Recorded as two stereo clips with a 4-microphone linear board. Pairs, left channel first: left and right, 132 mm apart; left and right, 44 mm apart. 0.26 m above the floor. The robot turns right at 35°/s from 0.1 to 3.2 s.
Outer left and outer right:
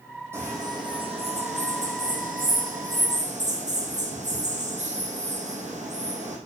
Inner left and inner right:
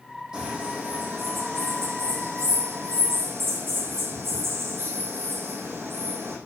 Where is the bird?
160° right, 4.5 m; by 6.4 s 60° right, 4.5 m.